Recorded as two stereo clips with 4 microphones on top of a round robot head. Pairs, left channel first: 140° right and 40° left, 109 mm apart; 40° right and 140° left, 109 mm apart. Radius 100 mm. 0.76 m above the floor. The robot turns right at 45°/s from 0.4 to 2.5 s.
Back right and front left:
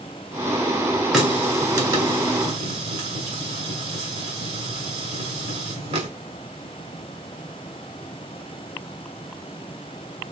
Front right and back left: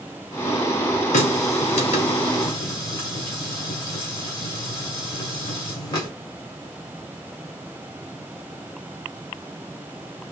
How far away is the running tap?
About 2 m.